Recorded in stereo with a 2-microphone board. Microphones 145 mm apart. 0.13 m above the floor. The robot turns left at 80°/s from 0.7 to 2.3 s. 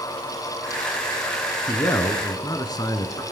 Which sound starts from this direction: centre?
A man speaking, at 1.7 s.